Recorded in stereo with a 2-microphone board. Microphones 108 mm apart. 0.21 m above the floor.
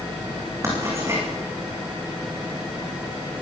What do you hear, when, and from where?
0.6 s writing: 25° right (ahead or behind), 9.5 m